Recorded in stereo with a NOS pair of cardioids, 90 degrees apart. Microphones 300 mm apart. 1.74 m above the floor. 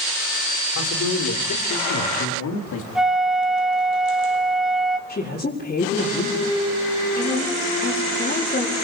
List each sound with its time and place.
0.8 s a man speaking: 60° left, 6.5 m; by 2.9 s 65° left, 4 m
3.0 s a flute: straight ahead, 1.3 m
5.1 s a woman speaking: 30° left, 5 m